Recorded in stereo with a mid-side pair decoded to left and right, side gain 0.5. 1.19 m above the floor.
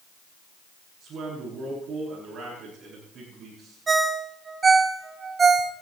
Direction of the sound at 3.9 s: 35° right.